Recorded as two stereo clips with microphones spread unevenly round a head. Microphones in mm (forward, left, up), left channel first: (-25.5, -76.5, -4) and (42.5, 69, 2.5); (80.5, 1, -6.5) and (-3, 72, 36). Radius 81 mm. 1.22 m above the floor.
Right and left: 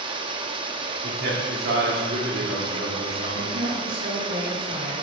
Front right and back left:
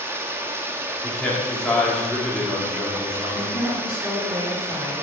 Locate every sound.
0.0 s running water: 110° left, 0.8 m
1.0 s a man speaking: 40° left, 3.5 m
3.3 s a woman speaking: 50° left, 4.5 m